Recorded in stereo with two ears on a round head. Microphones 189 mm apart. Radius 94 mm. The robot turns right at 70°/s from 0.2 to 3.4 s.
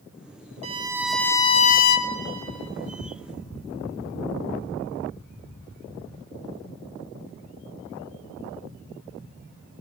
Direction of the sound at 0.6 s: 35° right.